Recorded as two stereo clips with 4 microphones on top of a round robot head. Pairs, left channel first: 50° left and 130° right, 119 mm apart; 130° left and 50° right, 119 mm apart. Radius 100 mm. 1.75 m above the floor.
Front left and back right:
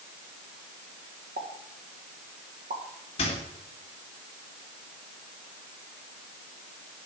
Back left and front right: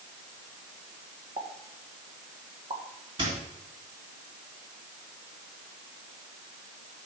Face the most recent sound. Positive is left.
turn(degrees=5)